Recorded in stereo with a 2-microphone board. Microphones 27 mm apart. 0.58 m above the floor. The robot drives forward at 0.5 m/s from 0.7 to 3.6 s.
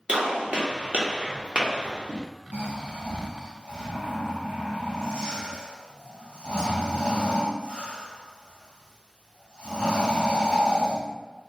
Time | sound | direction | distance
0.1 | a gunshot | 50° right (ahead or behind) | 1.0 m
2.5 | snoring | 80° right | 1.1 m